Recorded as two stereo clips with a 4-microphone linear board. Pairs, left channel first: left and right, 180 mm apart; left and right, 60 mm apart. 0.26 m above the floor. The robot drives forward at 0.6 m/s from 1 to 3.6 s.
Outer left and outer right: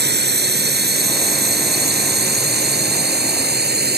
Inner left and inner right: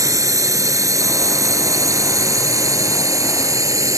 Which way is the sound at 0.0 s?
70° right (ahead or behind).